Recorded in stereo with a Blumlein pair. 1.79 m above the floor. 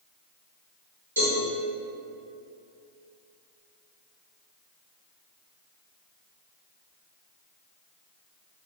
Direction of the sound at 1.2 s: 70° right.